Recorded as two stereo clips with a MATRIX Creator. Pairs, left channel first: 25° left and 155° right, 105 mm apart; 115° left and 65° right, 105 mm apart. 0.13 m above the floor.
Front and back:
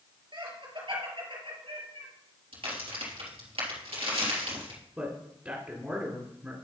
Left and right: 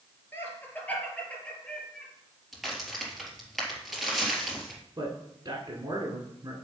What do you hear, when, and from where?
0.3 s laughter: 175° left, 3 m; by 2.1 s 165° right, 3.5 m
2.5 s a crack: 155° right, 3 m
5.0 s a man speaking: 90° right, 2 m